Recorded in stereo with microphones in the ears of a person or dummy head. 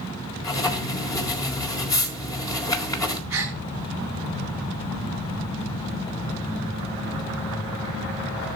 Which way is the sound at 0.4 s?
20° left (ahead or behind).